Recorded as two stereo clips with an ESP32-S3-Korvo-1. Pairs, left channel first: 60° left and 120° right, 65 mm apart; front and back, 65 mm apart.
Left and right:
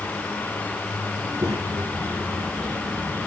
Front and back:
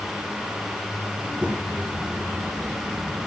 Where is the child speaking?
110° right, 3 m; by 3.3 s 150° right, 1.9 m.